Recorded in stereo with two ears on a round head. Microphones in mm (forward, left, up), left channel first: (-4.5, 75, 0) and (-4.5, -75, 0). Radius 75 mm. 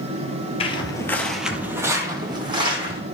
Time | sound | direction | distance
0.6 | footsteps | 35° left (ahead or behind) | 1.0 m